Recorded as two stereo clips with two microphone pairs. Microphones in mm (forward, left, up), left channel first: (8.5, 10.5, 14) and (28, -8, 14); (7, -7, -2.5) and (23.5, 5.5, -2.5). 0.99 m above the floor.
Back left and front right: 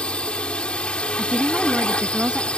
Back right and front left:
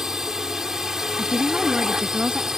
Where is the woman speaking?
5° left.